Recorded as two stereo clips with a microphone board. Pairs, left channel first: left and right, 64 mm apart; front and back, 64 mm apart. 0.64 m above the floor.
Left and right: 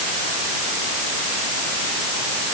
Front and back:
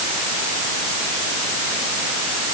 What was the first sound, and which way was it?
Only background noise.